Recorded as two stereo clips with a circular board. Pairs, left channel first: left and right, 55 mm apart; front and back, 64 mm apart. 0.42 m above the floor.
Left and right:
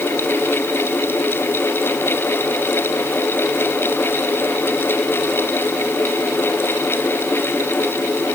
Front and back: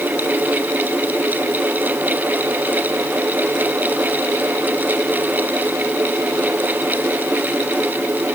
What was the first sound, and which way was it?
Only background noise.